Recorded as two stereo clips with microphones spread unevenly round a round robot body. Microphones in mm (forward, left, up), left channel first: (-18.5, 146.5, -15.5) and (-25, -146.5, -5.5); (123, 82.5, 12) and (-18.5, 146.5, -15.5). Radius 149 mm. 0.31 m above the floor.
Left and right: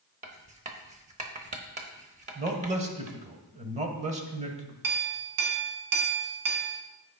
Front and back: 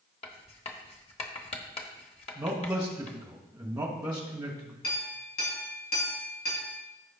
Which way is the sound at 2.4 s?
150° right.